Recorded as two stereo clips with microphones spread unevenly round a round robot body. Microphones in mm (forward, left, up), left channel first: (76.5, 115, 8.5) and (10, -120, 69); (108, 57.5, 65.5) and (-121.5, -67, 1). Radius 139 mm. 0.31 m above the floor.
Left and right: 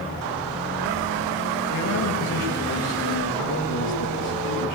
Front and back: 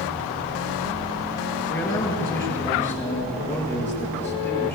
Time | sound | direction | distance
1.7 | a man speaking | 110° left | 6.5 m